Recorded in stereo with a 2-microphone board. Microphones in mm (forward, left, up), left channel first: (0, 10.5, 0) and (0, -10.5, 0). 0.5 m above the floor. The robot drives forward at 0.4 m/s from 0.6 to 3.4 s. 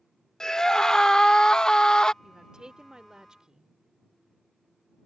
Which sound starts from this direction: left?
A scream, at 0.4 s.